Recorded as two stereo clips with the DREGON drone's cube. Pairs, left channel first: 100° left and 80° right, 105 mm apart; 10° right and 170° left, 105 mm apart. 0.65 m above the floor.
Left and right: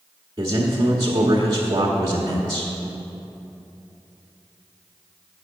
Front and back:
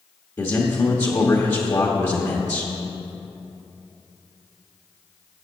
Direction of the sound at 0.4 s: 60° right.